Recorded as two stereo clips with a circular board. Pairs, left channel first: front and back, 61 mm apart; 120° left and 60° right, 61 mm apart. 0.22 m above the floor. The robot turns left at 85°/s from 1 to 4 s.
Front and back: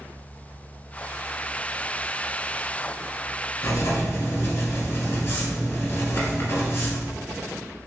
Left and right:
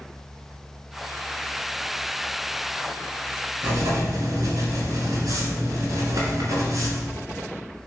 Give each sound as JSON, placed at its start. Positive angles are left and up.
{"t": 3.6, "sound": "writing", "azimuth_deg": -15, "distance_m": 1.2}